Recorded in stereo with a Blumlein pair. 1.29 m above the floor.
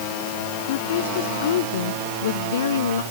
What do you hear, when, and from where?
0.6 s a woman speaking: 55° left; by 3.0 s 65° left